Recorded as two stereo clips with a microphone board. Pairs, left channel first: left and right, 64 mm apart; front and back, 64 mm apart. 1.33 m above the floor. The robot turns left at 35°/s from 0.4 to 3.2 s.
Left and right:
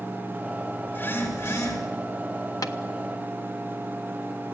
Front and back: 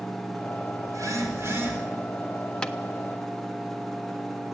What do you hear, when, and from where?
0.9 s a phone buzzing: 155° left, 4.5 m; by 1.8 s 120° left, 4.5 m
2.6 s tapping: 75° left, 1.3 m; by 2.8 s 70° left, 1.3 m